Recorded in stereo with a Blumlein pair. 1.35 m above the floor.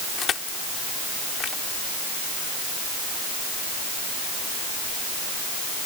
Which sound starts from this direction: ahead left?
Crushing, at 0.2 s.